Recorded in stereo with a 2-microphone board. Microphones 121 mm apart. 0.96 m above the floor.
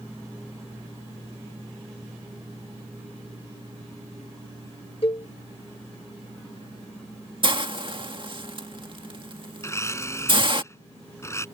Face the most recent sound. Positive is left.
turn(degrees=25)  # may be behind; listen again after turning